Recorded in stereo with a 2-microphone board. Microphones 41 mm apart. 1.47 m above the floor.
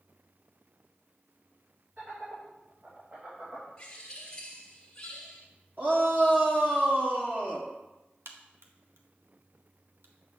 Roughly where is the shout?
Right.